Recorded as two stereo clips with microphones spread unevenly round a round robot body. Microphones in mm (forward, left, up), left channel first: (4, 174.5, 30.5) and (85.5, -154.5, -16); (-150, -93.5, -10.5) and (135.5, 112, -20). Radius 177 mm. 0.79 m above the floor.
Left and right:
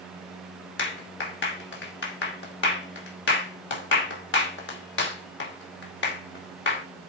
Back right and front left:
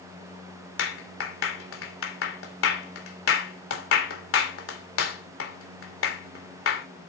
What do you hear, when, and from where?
0.8 s a clap: 165° left, 2.5 m